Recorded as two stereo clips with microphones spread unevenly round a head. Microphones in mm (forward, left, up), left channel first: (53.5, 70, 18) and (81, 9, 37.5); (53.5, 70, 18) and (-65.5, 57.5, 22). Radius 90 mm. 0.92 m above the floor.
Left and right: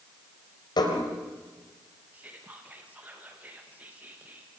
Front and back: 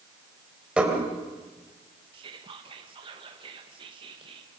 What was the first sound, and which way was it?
Dishes clattering, 105° left.